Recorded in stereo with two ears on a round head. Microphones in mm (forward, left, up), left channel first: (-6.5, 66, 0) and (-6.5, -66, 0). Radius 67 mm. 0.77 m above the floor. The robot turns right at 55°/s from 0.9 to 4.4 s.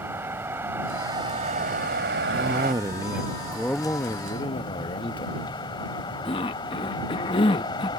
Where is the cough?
60° right; by 7.9 s 55° left.